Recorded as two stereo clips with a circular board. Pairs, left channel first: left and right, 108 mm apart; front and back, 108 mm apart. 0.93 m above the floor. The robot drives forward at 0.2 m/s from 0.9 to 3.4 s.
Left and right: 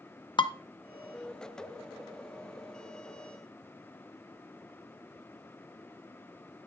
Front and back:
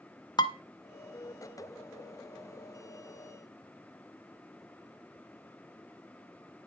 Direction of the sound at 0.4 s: 50° left.